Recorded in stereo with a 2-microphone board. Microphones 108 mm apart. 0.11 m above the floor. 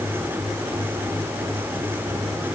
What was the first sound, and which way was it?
Only background noise.